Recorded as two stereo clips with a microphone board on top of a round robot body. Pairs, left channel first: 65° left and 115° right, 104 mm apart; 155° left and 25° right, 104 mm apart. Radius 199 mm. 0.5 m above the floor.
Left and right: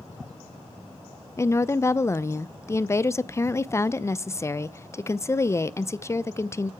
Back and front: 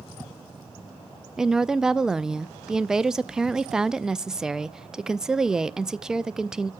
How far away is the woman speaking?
About 0.7 m.